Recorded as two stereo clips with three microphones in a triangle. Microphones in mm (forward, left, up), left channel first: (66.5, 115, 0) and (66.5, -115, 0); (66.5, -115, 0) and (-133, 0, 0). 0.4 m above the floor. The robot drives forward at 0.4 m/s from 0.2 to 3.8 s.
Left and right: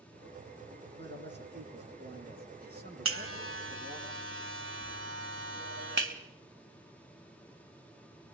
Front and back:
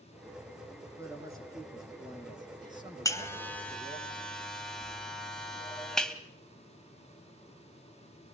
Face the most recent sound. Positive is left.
turn(degrees=-115)